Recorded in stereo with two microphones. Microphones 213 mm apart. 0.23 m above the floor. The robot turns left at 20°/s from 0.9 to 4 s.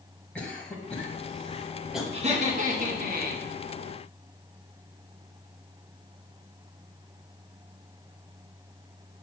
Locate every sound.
0.3 s a cough: 5° left (ahead or behind), 1.1 m; by 2.0 s 5° right (ahead or behind), 1.1 m
2.1 s laughter: 30° right (ahead or behind), 1.9 m; by 3.5 s 50° right (ahead or behind), 1.9 m